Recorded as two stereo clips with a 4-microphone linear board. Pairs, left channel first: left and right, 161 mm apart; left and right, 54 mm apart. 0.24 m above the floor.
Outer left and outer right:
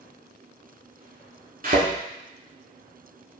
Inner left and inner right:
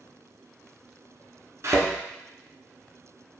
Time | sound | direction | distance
1.6 | a thud | 55° right (ahead or behind) | 0.9 m